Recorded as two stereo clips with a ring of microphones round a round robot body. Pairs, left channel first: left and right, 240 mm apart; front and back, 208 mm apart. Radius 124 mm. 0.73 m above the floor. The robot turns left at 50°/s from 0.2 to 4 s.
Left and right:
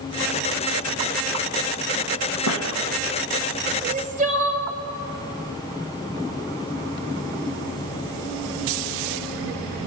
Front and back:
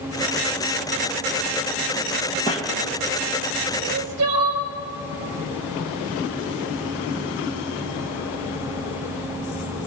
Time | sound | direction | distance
2.5 | a squeak | 65° left | 2.5 m
3.8 | crying | 140° right | 1.7 m